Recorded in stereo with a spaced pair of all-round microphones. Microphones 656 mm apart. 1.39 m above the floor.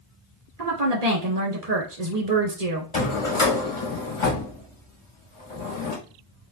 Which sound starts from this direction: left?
A drawer, at 2.9 s.